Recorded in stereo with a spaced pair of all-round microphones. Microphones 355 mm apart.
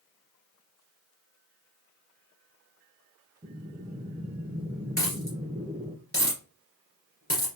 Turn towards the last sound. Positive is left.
turn(degrees=40)  # may be behind; listen again after turning